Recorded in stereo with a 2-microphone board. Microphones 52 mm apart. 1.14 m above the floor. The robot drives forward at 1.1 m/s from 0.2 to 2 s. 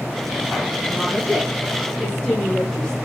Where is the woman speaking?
20° left (ahead or behind), 8 m; by 3.0 s 15° left (ahead or behind), 9 m.